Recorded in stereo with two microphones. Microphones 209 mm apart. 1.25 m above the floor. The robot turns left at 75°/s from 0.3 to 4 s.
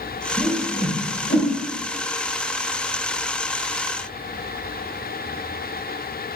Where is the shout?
No shout in this recording.